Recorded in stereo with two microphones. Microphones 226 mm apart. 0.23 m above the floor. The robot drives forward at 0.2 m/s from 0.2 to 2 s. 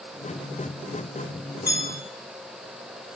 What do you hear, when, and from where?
1.7 s a bell: 5° right (ahead or behind), 1.6 m